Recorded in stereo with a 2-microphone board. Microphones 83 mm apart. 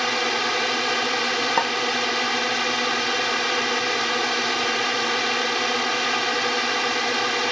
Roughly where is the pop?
Centre.